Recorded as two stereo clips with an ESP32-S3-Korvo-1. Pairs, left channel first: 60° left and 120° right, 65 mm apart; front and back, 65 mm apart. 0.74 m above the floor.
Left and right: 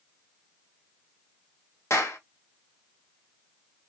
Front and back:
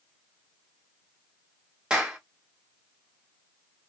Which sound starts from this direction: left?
A clap, at 1.9 s.